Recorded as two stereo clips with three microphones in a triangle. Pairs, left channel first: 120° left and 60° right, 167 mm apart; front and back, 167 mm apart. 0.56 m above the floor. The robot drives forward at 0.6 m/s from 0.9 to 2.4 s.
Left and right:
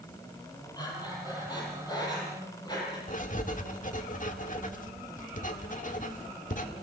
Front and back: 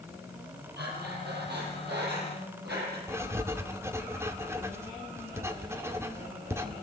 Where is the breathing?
175° right, 5 m.